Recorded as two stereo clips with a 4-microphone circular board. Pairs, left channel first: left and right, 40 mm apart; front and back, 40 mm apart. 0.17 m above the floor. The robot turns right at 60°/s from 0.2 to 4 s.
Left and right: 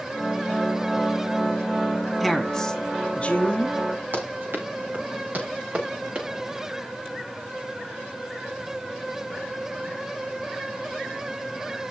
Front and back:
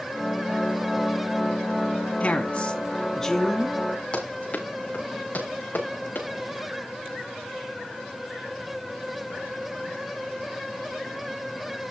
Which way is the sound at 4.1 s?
55° right.